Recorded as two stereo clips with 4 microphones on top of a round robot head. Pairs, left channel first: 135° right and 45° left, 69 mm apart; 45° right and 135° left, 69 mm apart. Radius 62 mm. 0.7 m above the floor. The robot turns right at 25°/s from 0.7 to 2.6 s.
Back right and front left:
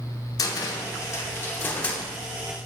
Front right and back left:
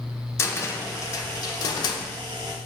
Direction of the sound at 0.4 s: 95° right.